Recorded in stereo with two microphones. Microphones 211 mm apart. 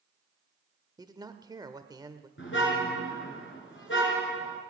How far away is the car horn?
About 3 m.